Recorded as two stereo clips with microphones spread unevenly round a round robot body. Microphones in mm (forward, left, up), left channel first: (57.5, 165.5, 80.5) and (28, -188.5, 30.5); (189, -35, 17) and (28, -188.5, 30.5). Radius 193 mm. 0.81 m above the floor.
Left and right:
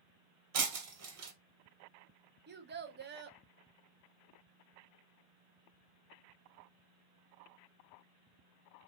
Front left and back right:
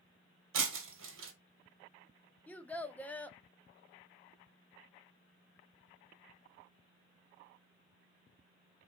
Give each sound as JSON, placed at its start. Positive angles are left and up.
{"t": 0.5, "sound": "breaking glass", "azimuth_deg": -150, "distance_m": 1.5}
{"t": 2.5, "sound": "a child speaking", "azimuth_deg": -40, "distance_m": 1.0}